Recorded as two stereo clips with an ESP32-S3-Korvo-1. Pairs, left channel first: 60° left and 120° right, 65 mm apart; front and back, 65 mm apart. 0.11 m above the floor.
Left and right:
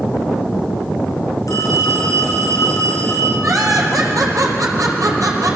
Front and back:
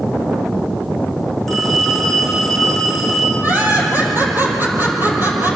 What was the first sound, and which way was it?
A phone ringing, 85° left.